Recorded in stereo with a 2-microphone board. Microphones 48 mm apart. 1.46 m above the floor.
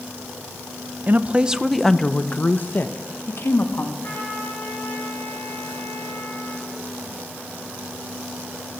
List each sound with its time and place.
1.1 s a woman speaking: 40° right (ahead or behind), 0.7 m; by 3.9 s 60° left (ahead or behind), 1.8 m
4.0 s a trumpet: 50° left (ahead or behind), 7.5 m